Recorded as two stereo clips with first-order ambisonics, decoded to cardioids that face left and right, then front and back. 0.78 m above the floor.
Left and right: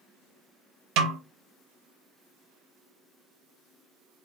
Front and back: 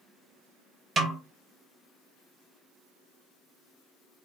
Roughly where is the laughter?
No laughter in this recording.